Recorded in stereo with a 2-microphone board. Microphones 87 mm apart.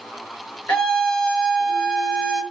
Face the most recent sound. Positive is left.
turn(degrees=15)  # may be behind; listen again after turning